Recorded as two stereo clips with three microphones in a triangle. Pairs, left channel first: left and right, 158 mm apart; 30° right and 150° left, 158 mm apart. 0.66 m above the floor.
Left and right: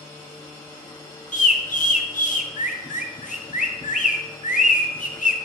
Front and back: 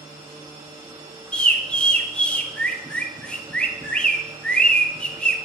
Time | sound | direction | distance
1.3 | a bird | 55° left | 0.8 m